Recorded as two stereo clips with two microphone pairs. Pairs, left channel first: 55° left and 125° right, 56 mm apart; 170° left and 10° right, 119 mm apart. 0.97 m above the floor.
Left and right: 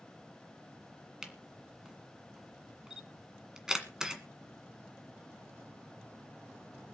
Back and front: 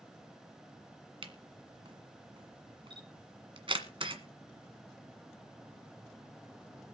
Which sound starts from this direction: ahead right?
A camera shutter, at 1.2 s.